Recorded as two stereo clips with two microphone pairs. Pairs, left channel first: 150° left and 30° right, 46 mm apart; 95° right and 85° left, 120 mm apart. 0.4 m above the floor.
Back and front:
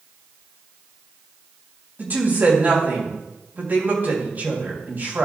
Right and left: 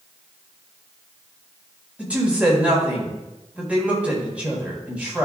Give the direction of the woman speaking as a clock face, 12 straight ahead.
12 o'clock.